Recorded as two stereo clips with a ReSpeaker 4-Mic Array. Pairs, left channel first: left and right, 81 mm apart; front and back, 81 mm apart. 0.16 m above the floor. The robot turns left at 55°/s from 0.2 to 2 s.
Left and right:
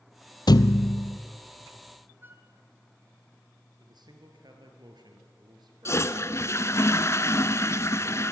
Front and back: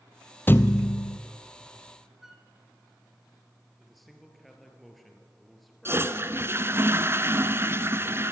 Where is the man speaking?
90° right, 3.5 m.